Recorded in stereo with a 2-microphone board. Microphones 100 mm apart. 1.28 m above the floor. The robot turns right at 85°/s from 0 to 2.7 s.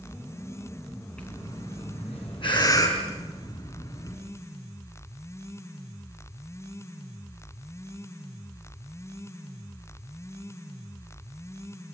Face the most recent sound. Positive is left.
turn(degrees=40)  # may be behind; listen again after turning